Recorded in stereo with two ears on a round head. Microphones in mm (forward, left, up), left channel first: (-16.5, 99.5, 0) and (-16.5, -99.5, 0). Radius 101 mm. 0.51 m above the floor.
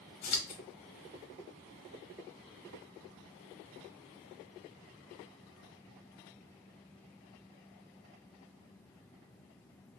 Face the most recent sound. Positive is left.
turn(degrees=80)